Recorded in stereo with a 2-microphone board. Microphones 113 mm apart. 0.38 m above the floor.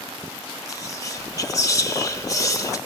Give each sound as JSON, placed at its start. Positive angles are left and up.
{"t": 0.7, "sound": "whispering", "side_deg": 30, "distance_m": 1.0}